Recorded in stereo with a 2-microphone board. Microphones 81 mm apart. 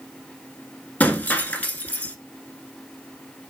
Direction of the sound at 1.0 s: 20° left (ahead or behind).